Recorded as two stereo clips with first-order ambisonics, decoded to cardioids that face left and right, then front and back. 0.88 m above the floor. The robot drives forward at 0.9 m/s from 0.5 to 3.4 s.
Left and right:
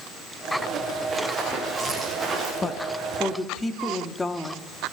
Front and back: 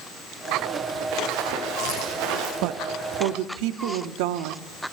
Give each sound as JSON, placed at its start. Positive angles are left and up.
{"t": 1.1, "sound": "running footsteps", "azimuth_deg": -170, "distance_m": 7.5}
{"t": 2.6, "sound": "a woman speaking", "azimuth_deg": 165, "distance_m": 0.6}